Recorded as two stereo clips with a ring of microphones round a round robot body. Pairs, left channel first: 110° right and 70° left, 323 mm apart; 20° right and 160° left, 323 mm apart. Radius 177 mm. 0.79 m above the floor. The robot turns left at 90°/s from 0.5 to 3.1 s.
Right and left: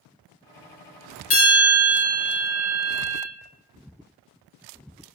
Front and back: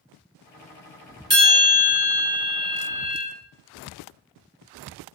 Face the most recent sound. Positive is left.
turn(degrees=75)